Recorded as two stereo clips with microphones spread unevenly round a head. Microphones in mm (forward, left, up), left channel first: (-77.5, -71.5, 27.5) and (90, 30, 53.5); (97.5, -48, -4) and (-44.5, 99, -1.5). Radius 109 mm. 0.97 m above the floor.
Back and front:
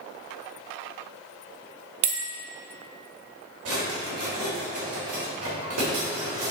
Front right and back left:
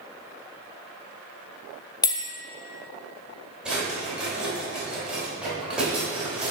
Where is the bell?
25° left, 0.7 m.